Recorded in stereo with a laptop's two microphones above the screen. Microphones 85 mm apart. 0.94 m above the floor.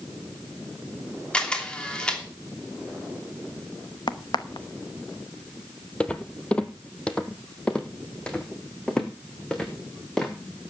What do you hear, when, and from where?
1.3 s a camera shutter: 10° left (ahead or behind), 2.5 m
4.1 s a crack: 65° left (ahead or behind), 0.8 m
6.0 s footsteps: 15° left (ahead or behind), 1.0 m; by 10.7 s 10° left (ahead or behind), 3.5 m